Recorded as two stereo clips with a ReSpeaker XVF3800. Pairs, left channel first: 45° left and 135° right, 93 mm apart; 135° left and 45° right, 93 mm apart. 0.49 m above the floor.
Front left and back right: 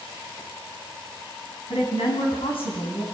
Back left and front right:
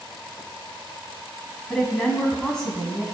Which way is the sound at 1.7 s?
50° left.